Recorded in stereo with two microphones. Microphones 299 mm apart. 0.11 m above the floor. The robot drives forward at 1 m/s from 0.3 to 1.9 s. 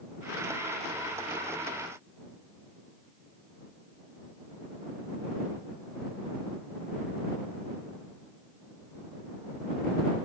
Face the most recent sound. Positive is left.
No sound to turn to.